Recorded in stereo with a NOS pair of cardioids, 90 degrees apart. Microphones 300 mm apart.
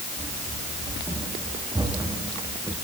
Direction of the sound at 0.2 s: 15° right.